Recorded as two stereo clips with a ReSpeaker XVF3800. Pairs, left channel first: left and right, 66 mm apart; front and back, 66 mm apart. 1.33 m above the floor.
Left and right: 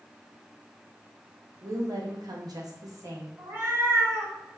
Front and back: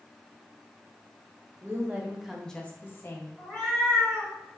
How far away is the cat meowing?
About 1.6 m.